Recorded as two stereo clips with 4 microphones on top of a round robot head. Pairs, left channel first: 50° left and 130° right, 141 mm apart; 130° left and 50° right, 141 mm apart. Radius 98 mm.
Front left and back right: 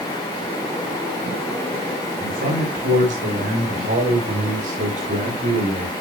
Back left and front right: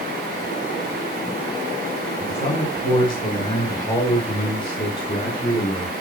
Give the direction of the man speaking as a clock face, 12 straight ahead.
6 o'clock.